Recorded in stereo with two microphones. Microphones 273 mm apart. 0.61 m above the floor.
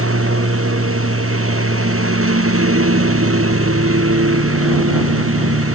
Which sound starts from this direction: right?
A lawn mower, at 0.0 s.